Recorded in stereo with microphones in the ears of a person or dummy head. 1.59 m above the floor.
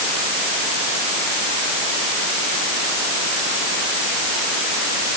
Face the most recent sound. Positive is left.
No sound to turn to.